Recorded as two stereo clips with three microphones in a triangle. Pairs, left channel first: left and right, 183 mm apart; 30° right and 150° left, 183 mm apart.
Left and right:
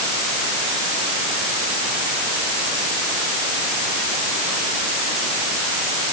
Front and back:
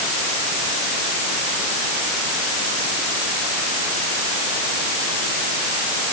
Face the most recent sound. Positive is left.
No sound to turn to.